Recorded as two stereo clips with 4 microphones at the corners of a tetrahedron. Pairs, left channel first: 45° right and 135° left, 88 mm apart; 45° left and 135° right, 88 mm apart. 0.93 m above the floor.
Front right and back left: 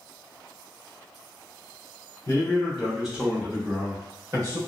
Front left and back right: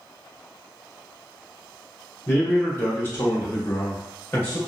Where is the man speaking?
Straight ahead, 0.8 m; by 4.6 s 110° left, 1.2 m.